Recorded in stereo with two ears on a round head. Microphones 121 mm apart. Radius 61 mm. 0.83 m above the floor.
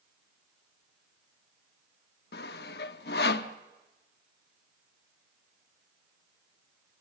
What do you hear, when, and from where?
2.3 s sawing: 80° left, 0.9 m